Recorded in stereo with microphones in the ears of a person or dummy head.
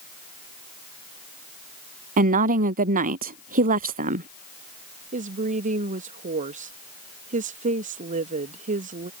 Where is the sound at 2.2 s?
45° right (ahead or behind).